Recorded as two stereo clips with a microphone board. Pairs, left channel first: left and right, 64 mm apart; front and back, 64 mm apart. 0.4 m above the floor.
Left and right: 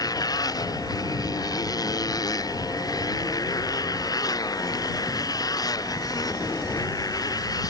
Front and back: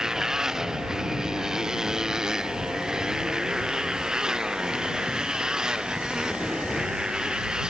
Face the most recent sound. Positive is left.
turn(degrees=100)